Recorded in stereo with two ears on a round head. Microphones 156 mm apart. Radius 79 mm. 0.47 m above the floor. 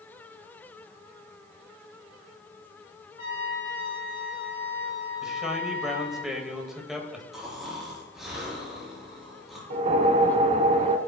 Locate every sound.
3.2 s a trumpet: 65° left (ahead or behind), 4.5 m
5.2 s a man speaking: 5° right (ahead or behind), 1.9 m
7.3 s snoring: 5° right (ahead or behind), 4 m
9.7 s a whoosh: 40° right (ahead or behind), 0.6 m